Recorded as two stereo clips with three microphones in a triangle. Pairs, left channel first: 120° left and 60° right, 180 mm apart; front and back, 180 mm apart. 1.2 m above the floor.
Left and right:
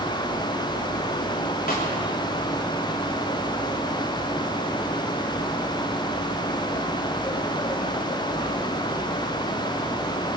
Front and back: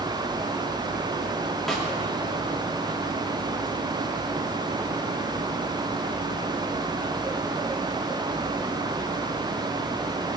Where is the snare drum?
90° left, 3 m.